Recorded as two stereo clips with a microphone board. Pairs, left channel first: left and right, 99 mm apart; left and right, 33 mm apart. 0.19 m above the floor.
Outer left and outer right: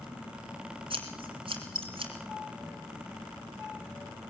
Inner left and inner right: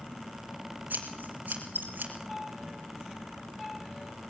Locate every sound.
0.9 s scissors: 60° right (ahead or behind), 4.5 m